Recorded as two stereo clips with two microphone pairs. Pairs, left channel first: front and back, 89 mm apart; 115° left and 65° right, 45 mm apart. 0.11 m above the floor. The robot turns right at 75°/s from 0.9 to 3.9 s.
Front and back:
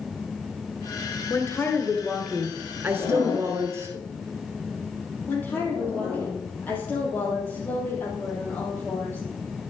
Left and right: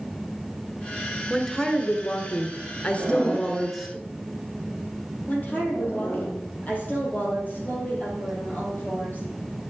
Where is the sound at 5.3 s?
70° left, 3.5 m.